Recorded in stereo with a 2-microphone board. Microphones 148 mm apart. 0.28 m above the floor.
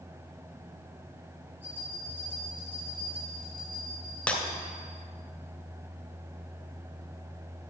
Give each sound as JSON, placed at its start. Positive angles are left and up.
{"t": 1.6, "sound": "a bell", "side_deg": -15, "distance_m": 3.0}
{"t": 4.3, "sound": "breaking glass", "side_deg": 10, "distance_m": 1.4}